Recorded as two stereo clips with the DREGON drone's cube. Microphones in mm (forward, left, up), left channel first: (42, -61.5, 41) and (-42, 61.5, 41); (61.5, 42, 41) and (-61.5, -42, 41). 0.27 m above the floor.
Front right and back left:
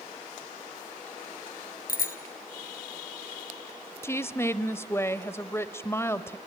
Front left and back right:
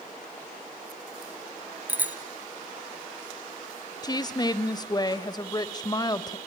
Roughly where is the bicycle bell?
Ahead right.